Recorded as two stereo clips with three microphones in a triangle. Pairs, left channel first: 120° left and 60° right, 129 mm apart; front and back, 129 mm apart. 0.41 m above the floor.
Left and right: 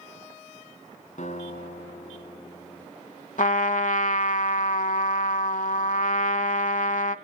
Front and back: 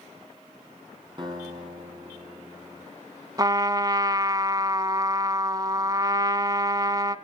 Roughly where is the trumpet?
Behind left.